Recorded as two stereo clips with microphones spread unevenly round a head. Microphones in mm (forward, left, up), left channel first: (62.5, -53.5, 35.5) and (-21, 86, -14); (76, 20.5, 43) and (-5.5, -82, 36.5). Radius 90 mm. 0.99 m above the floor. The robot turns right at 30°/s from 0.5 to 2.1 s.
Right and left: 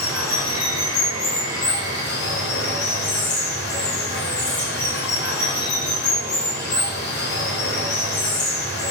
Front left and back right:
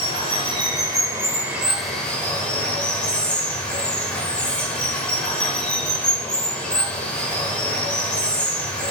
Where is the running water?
80° right, 1.2 m; by 8.9 s 30° right, 1.2 m.